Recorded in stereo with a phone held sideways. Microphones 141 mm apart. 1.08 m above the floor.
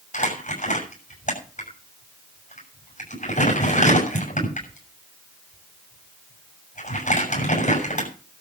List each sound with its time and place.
0.1 s crumpling: 60° left (ahead or behind), 7.5 m